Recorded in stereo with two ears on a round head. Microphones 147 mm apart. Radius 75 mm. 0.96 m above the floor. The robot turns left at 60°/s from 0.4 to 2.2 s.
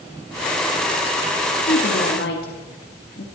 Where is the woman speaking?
65° left (ahead or behind), 1.8 m.